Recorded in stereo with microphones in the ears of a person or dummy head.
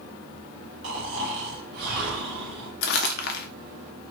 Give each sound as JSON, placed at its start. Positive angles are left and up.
{"t": 0.8, "sound": "snoring", "side_deg": -55, "distance_m": 1.5}
{"t": 2.8, "sound": "crumpling", "side_deg": 60, "distance_m": 1.1}